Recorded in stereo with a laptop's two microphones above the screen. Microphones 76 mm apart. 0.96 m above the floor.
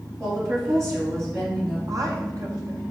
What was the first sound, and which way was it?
A woman speaking, 35° right (ahead or behind).